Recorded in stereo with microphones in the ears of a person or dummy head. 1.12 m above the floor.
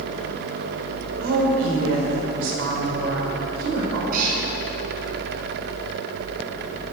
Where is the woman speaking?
75° right (ahead or behind), 4 m.